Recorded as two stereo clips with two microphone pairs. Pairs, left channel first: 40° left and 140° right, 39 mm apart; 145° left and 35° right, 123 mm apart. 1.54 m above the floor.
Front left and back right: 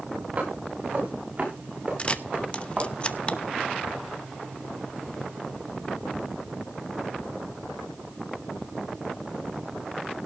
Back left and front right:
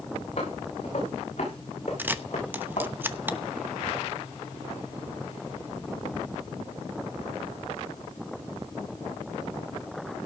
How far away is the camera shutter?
About 0.9 m.